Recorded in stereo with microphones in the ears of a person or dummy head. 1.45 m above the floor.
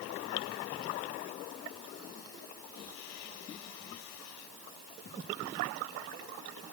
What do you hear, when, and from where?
Only background noise.